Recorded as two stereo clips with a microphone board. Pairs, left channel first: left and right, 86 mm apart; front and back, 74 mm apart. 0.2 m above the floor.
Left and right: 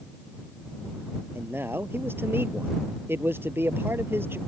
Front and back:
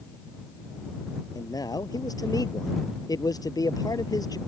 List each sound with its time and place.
1.4 s a man speaking: 25° right